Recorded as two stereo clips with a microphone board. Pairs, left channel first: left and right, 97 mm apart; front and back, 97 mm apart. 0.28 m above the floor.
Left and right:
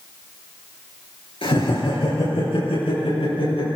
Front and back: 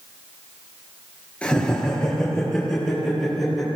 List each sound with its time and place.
1.4 s laughter: 80° left, 6 m; by 3.7 s 90° left, 8.5 m